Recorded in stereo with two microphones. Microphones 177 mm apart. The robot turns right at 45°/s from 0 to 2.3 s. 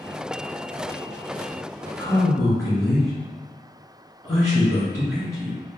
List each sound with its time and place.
2.0 s a man speaking: 5° left (ahead or behind), 1.8 m; by 5.6 s 5° right (ahead or behind), 1.8 m